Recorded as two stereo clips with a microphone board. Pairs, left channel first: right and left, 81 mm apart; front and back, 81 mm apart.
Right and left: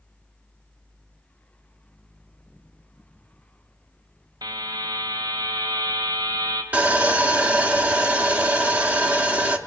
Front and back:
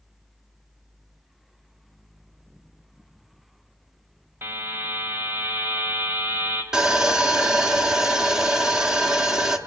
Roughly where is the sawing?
Behind left.